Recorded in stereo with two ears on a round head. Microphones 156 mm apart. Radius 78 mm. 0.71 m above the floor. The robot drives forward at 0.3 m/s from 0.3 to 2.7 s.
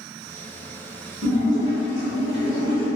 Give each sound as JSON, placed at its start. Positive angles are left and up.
{"t": 1.2, "sound": "a splash", "side_deg": -75, "distance_m": 0.9}